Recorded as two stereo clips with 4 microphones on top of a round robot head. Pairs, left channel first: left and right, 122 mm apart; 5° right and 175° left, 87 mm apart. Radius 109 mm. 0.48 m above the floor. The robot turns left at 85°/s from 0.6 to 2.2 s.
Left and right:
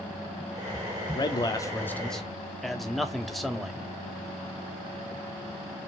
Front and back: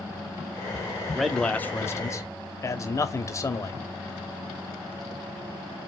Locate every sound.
1.1 s a man speaking: 95° left, 1.0 m; by 3.8 s 5° left, 1.0 m